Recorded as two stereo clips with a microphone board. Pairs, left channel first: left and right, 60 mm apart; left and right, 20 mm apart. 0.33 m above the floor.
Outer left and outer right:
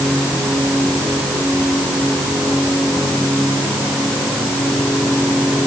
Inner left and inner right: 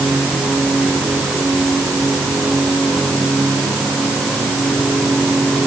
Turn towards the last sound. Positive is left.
No sound to turn to.